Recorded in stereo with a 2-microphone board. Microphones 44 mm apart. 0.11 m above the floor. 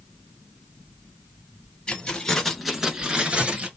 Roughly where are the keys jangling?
Left.